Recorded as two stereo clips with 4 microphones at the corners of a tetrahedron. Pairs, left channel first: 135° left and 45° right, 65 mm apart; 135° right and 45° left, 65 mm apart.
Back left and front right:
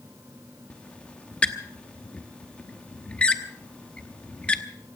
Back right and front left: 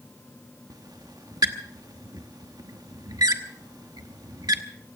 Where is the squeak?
60° left, 1.0 m.